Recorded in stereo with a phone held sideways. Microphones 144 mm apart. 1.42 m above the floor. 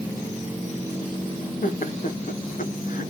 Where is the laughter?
70° left (ahead or behind), 1.2 m.